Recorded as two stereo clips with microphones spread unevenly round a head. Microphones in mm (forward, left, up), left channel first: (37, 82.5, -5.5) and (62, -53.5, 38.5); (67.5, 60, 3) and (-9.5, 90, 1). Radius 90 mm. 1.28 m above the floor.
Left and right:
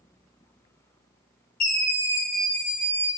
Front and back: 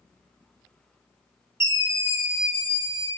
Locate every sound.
1.6 s a scream: 100° left, 1.0 m